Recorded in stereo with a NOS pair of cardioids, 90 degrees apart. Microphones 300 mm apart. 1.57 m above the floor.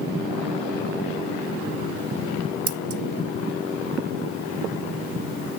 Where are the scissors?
50° right, 1.0 m.